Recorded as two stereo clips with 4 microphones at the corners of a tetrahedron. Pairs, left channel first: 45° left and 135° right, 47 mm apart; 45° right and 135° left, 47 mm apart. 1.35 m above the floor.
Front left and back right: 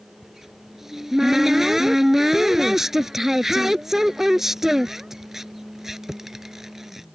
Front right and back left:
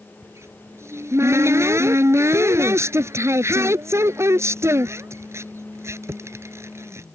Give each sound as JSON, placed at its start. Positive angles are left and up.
{"t": 0.2, "sound": "a cupboard door", "azimuth_deg": 145}